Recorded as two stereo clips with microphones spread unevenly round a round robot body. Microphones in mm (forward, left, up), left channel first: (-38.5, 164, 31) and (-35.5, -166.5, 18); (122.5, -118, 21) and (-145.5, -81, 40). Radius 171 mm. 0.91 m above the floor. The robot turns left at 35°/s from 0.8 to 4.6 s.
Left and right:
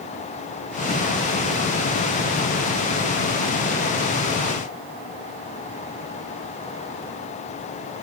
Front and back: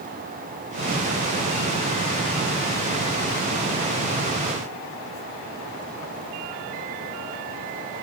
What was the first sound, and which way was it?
Only background noise.